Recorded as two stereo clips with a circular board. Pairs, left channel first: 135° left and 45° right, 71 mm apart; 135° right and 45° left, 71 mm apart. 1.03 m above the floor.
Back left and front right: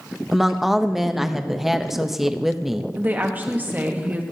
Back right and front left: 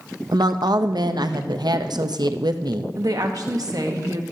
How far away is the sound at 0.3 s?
About 0.6 m.